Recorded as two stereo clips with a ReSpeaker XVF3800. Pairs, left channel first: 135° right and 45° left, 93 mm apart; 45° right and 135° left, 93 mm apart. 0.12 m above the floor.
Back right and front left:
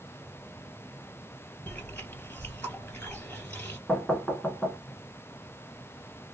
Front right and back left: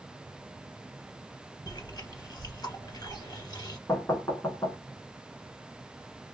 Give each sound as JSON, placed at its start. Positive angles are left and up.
{"t": 1.7, "sound": "chewing", "azimuth_deg": -70, "distance_m": 2.0}
{"t": 3.9, "sound": "knocking", "azimuth_deg": -50, "distance_m": 1.0}